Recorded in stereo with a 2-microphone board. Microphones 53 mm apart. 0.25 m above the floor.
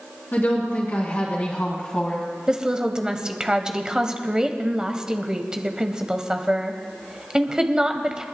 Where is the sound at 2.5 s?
15° right (ahead or behind), 1.0 m.